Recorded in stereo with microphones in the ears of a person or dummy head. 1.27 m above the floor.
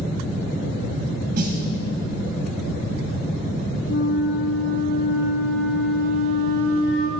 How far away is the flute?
About 5 m.